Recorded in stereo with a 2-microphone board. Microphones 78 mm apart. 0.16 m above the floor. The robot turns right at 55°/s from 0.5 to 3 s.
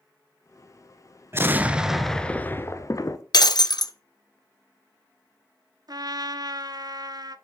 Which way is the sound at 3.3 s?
60° left (ahead or behind).